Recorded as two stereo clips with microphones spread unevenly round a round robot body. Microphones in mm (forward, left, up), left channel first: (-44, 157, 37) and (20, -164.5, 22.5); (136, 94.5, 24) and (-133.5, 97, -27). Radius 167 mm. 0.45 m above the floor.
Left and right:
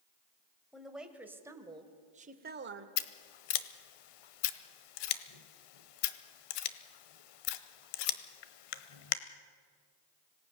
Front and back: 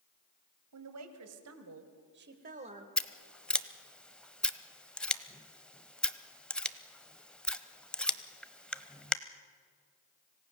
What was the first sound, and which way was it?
A woman speaking, 170° right.